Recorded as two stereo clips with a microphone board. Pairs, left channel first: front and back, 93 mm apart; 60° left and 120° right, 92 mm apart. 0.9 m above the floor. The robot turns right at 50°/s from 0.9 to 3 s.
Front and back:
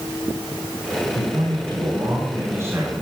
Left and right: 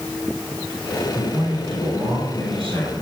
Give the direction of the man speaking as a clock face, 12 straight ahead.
6 o'clock.